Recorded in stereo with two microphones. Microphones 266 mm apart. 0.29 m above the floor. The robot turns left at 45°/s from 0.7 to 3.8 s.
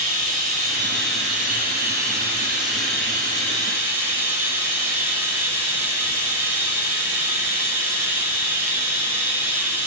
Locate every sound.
0.0 s running water: 35° right, 1.0 m; by 9.9 s 170° right, 1.0 m